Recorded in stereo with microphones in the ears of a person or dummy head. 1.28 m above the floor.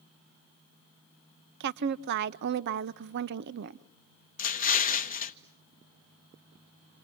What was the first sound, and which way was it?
A woman speaking, 60° right (ahead or behind).